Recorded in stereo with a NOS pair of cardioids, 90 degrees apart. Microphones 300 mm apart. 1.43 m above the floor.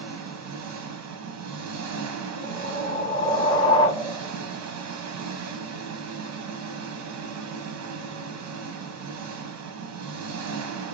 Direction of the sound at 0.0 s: 65° right.